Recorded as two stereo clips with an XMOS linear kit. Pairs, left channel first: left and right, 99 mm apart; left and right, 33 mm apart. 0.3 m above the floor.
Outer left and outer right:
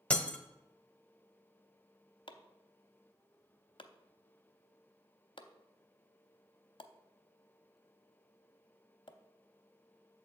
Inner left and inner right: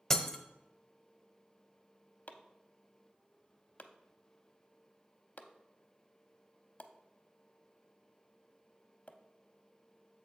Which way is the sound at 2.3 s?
55° left (ahead or behind).